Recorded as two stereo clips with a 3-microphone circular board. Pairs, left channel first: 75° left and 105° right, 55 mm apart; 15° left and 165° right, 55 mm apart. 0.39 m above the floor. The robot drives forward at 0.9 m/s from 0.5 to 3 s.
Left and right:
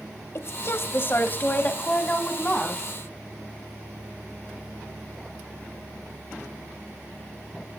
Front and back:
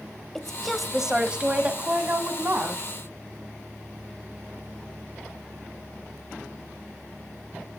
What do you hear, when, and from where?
0.3 s a woman speaking: 100° left, 1.5 m; by 2.8 s 150° left, 2.5 m